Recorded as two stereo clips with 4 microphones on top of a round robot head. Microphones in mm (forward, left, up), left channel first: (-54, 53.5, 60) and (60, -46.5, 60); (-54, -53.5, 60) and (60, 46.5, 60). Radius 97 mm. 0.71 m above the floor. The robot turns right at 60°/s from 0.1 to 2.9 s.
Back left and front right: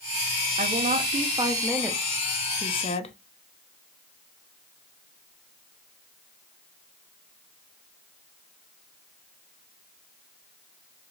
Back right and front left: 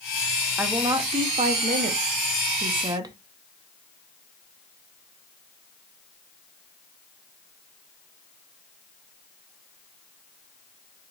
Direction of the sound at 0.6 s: 40° right.